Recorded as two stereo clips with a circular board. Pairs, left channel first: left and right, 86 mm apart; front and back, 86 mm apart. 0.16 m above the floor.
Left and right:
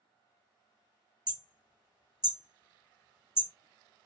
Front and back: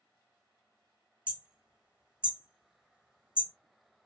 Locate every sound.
1.3 s hammering: 105° right, 1.6 m